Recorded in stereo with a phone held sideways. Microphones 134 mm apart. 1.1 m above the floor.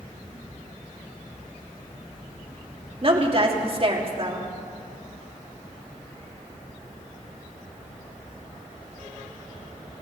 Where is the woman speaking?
40° right (ahead or behind), 2 m.